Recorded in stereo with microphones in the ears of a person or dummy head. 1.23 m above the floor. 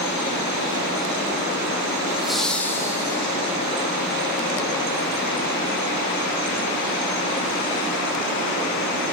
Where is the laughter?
5° right (ahead or behind), 1.3 m; by 3.2 s 20° left (ahead or behind), 1.7 m.